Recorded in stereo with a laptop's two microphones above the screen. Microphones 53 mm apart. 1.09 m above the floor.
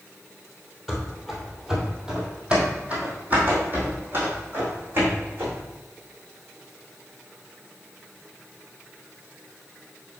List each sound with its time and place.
0.9 s running footsteps: 5° left (ahead or behind), 1.3 m; by 5.6 s 45° right (ahead or behind), 3 m